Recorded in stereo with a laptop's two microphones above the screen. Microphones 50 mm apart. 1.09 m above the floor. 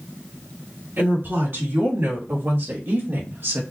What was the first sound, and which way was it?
A woman speaking, 50° right (ahead or behind).